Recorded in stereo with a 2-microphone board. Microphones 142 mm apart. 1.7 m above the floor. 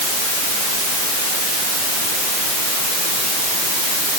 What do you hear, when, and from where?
Only background noise.